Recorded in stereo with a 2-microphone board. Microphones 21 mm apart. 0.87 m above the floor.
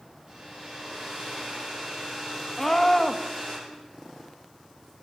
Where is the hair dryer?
35° right (ahead or behind), 9 m.